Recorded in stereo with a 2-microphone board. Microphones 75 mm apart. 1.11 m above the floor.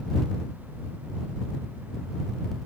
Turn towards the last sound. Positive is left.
No sound to turn to.